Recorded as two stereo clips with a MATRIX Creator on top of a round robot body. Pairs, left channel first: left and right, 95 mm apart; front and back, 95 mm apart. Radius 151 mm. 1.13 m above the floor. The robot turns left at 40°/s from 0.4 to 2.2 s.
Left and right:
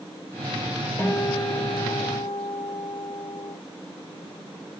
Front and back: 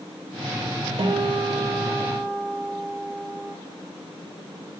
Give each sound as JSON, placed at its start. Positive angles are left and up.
{"t": 1.0, "sound": "a guitar", "azimuth_deg": 160, "distance_m": 1.3}